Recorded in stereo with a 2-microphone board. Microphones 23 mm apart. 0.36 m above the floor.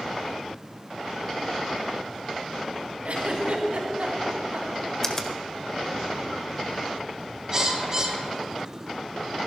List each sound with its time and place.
3.0 s a giggle: 70° right (ahead or behind), 3 m
5.0 s a finger snap: 20° left (ahead or behind), 1.4 m
7.5 s a bird: 25° right (ahead or behind), 1.9 m